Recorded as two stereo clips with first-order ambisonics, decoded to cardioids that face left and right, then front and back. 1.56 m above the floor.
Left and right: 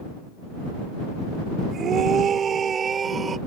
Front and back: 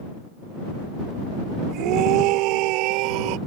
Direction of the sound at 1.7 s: 145° right.